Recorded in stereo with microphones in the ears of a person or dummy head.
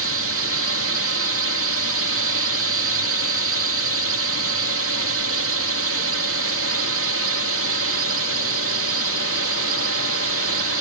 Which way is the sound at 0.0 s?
70° right (ahead or behind).